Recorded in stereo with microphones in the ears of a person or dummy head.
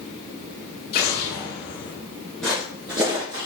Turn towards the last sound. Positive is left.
turn(degrees=-20)  # may be behind; listen again after turning